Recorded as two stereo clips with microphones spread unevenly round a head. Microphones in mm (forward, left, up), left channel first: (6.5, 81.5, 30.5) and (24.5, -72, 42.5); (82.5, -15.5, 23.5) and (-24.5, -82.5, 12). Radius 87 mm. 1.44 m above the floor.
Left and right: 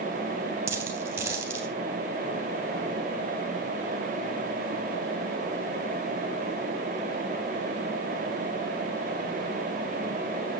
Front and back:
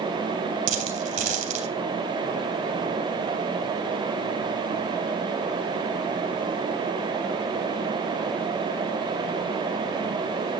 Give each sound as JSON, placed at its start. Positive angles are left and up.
{"t": 0.7, "sound": "a dropped coin", "azimuth_deg": -155, "distance_m": 2.5}